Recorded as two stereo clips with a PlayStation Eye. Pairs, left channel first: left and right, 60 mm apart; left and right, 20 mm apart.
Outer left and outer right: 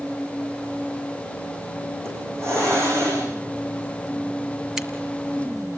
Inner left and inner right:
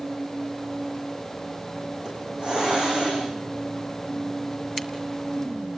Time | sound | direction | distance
2.0 | a hiss | 50° right (ahead or behind) | 9.5 m
4.8 | a crack | 10° right (ahead or behind) | 1.6 m